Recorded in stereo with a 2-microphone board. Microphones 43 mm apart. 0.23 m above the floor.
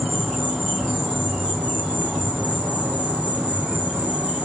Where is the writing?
No writing in this recording.